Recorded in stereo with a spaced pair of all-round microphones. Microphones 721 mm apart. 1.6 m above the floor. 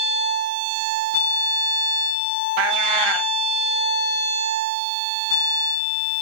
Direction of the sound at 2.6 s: 40° right (ahead or behind).